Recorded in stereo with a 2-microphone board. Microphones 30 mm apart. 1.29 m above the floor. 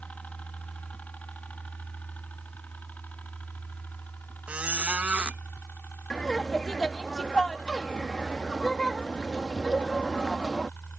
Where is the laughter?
25° left (ahead or behind).